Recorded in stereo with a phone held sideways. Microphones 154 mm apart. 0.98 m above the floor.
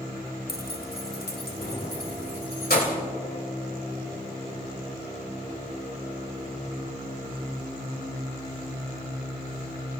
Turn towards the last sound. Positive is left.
turn(degrees=85)